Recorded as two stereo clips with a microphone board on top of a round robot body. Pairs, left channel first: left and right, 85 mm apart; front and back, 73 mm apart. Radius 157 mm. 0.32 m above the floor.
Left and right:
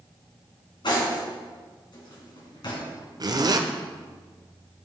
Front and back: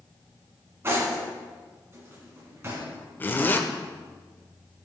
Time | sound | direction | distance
0.8 | cutlery clinking | 125° left | 3 m
3.2 | a zipper | 60° right | 1.1 m